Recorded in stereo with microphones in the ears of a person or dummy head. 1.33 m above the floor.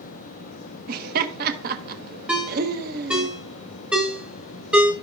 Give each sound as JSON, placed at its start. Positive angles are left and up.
{"t": 0.9, "sound": "laughter", "side_deg": -45, "distance_m": 1.2}
{"t": 2.3, "sound": "a ringtone", "side_deg": -10, "distance_m": 1.3}